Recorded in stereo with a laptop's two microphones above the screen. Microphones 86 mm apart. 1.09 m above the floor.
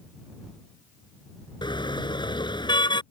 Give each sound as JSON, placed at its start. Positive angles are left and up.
{"t": 1.6, "sound": "a car horn", "side_deg": 65}